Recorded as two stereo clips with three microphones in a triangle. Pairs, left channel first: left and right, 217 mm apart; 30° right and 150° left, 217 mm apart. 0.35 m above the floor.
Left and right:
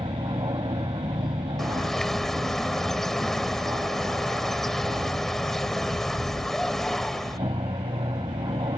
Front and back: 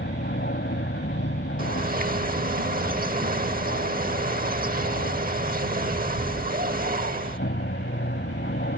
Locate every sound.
0.0 s an aircraft: 25° right
1.6 s a bird: 175° left